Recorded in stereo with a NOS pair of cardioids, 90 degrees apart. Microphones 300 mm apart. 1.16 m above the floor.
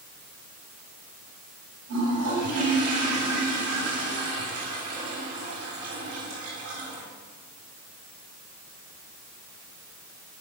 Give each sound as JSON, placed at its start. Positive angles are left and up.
{"t": 1.9, "sound": "a toilet flushing", "azimuth_deg": -65, "distance_m": 8.0}